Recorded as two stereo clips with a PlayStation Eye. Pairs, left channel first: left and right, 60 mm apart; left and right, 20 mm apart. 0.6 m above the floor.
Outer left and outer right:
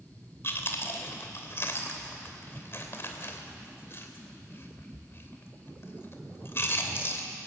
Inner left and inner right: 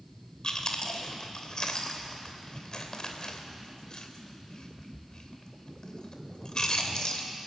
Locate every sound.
0.4 s chewing: 40° left (ahead or behind), 2.5 m